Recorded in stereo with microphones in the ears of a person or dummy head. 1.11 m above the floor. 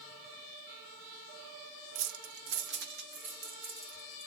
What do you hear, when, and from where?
1.9 s keys jangling: 70° right (ahead or behind), 0.6 m; by 4.3 s 45° right (ahead or behind), 2 m